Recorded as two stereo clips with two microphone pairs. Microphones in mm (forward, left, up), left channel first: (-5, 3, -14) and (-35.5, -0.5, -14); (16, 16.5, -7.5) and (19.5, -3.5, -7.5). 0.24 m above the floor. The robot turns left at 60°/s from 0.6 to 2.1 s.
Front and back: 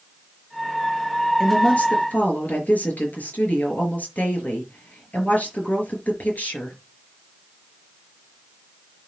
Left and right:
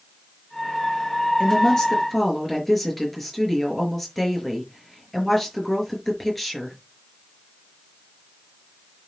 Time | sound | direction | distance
1.4 | a woman speaking | 65° left | 5 m